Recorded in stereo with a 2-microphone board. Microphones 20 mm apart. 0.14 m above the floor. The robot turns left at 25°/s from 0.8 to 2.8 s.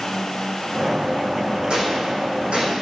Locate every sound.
1.7 s a gunshot: 65° right (ahead or behind), 5 m; by 2.7 s 80° right, 5 m